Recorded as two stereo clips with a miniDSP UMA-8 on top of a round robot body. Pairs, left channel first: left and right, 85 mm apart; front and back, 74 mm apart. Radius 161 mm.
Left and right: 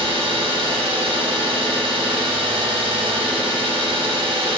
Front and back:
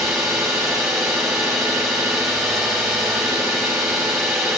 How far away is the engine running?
About 3 m.